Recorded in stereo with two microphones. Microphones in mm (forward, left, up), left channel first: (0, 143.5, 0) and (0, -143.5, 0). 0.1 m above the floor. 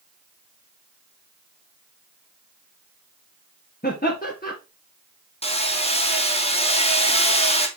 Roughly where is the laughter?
Left.